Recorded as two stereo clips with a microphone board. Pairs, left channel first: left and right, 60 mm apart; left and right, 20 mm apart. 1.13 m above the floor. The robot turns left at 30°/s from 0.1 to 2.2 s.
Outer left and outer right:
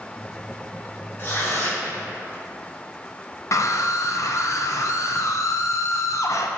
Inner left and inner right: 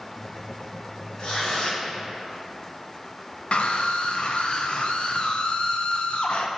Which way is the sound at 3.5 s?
60° left (ahead or behind).